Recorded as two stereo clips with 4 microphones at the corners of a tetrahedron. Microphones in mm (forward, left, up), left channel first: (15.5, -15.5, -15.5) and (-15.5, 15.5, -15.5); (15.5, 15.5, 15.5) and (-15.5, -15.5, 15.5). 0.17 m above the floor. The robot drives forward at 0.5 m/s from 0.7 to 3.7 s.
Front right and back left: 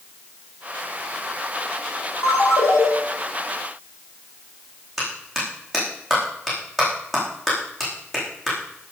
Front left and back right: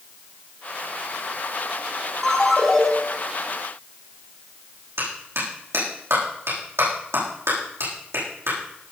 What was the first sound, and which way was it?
A ringtone, 35° right.